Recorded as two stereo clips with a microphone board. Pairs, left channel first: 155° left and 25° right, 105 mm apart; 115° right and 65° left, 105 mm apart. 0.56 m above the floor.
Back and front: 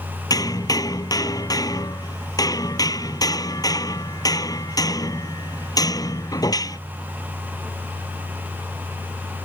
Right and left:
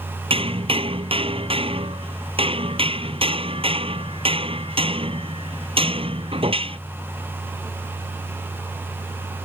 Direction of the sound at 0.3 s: 100° left.